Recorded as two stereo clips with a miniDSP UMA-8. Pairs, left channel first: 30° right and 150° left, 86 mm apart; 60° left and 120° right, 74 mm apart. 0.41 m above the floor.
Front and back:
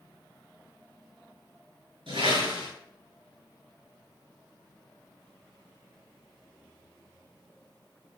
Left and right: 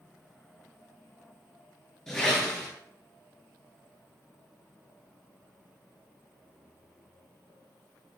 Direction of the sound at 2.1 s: 145° left.